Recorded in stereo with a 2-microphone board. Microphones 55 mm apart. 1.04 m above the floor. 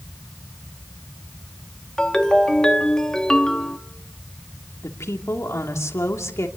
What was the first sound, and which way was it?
A ringtone, 15° left (ahead or behind).